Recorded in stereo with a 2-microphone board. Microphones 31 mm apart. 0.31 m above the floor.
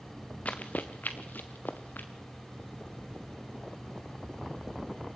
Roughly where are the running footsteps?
Left.